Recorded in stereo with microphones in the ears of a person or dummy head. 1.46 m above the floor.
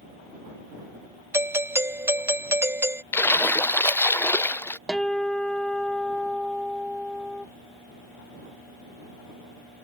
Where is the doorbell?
10° right (ahead or behind).